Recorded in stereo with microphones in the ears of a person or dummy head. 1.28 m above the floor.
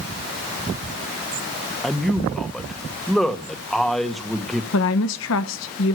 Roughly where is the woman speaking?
Left.